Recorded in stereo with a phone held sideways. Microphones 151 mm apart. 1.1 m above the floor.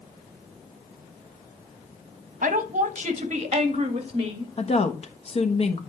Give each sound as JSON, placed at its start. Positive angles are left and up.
{"t": 2.4, "sound": "a woman speaking", "side_deg": -65, "distance_m": 1.2}
{"t": 4.6, "sound": "a woman speaking", "side_deg": 45, "distance_m": 1.2}